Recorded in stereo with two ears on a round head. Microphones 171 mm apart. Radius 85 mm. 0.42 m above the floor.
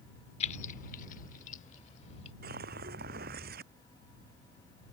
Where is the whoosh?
50° right (ahead or behind).